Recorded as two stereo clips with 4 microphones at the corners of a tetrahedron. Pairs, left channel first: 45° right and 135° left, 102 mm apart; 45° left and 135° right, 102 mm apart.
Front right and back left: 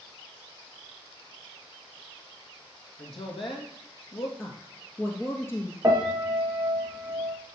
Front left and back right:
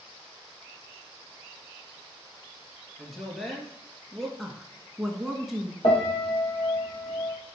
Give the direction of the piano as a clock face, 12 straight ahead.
10 o'clock.